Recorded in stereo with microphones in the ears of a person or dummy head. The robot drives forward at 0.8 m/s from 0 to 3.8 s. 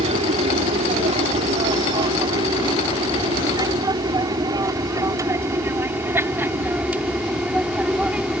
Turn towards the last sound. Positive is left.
turn(degrees=-5)  # may be behind; listen again after turning